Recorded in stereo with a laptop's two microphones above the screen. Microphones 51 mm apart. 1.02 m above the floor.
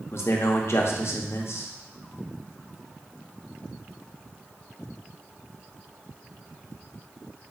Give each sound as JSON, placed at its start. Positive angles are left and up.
{"t": 0.1, "sound": "a man speaking", "side_deg": 55, "distance_m": 0.6}